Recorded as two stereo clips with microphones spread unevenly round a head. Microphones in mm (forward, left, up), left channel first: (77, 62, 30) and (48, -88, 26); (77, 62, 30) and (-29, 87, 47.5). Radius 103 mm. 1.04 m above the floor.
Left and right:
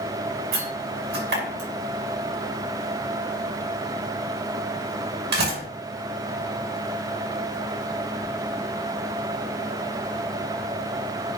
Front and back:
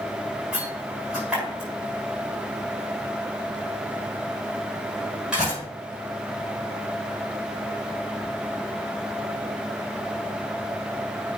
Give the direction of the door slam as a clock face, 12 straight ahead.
4 o'clock.